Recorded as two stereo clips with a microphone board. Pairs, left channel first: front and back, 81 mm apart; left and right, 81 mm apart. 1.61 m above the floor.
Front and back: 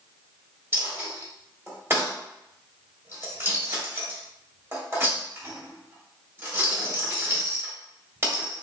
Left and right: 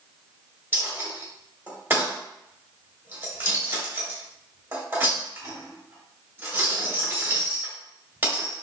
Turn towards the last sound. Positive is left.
turn(degrees=-135)